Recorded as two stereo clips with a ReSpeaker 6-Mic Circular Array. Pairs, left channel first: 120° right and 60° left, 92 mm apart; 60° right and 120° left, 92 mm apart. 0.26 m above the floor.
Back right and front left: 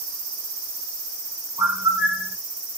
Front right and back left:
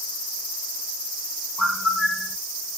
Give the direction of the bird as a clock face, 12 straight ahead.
11 o'clock.